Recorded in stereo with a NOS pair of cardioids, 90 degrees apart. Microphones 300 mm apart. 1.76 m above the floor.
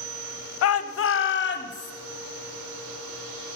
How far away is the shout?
About 0.7 m.